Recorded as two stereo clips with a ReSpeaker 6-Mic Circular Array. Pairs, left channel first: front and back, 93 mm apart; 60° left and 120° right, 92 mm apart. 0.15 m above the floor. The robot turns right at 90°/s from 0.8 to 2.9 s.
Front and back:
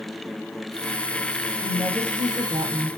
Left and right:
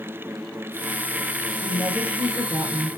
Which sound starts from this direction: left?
A woman speaking, at 1.6 s.